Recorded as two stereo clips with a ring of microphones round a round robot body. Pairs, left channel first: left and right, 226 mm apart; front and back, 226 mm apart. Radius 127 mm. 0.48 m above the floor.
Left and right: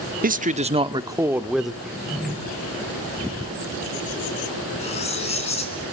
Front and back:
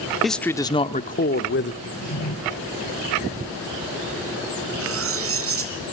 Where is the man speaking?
90° right, 1.1 m; by 1.7 s straight ahead, 1.3 m.